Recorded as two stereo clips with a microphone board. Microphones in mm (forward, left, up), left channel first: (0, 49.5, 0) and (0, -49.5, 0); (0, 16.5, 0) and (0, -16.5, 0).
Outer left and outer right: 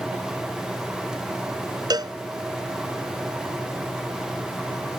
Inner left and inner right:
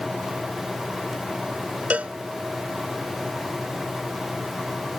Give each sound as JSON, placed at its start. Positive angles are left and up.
{"t": 1.9, "sound": "a cowbell", "side_deg": -45}